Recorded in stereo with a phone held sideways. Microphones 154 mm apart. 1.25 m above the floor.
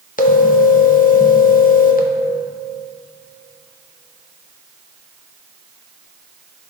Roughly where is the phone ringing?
Left.